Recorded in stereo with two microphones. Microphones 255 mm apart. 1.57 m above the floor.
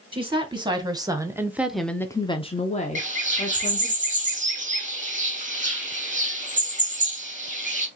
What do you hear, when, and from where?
0.1 s a woman speaking: 20° right (ahead or behind), 1.3 m; by 4.0 s 30° left (ahead or behind), 1.2 m
3.0 s a bird: 30° right (ahead or behind), 1.0 m